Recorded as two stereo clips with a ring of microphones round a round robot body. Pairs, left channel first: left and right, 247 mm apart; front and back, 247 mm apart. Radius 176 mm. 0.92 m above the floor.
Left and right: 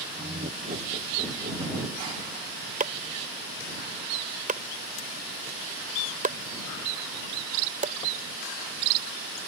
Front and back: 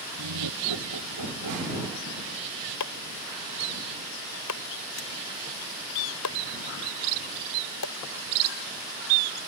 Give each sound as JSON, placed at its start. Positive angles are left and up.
{"t": 0.2, "sound": "laughter", "azimuth_deg": -160}
{"t": 2.8, "sound": "chopping", "azimuth_deg": -30}